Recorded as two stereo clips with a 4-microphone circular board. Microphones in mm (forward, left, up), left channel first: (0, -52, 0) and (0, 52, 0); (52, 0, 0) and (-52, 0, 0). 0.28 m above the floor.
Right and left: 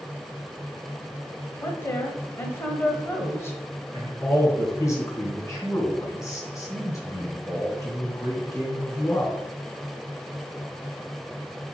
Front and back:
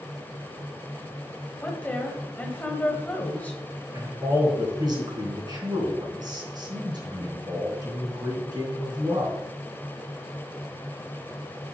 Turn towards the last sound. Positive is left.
turn(degrees=-145)